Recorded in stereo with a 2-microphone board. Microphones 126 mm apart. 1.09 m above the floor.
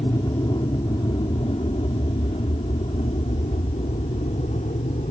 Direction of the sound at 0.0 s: 35° left (ahead or behind).